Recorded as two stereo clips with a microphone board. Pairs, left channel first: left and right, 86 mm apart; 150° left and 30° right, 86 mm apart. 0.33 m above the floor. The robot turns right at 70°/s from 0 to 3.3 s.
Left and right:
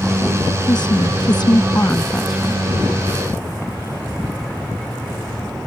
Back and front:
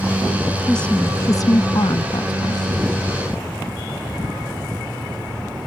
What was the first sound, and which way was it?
A woman speaking, 65° left.